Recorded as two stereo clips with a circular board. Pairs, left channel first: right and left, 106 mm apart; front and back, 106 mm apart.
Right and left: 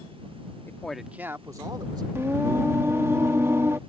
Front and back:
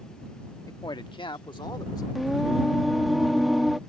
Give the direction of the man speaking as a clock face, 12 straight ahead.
1 o'clock.